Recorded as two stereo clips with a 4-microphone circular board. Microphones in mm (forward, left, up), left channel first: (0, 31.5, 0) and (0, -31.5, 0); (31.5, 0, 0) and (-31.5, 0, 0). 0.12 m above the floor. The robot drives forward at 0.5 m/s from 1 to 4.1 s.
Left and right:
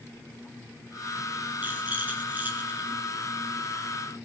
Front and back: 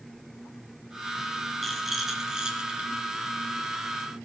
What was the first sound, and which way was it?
A rattle, 90° right.